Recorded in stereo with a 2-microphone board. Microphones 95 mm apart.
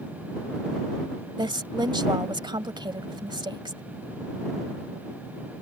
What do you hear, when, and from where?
1.4 s a woman speaking: 55° right (ahead or behind)